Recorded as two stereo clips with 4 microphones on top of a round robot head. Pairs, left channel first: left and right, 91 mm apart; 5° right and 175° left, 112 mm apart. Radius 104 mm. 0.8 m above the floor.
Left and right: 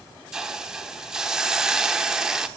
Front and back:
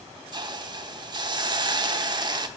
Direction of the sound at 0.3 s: 170° right.